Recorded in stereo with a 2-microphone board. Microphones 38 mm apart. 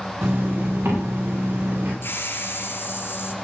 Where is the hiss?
65° left (ahead or behind), 3.5 m.